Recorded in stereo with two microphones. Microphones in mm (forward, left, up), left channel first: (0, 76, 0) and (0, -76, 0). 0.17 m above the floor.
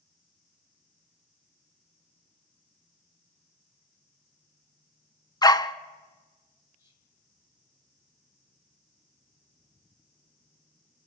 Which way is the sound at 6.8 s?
15° right (ahead or behind).